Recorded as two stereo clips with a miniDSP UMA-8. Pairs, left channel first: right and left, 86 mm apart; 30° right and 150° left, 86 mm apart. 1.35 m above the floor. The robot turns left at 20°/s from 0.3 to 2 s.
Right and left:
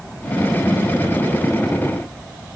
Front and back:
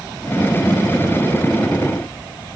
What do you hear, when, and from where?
Only background noise.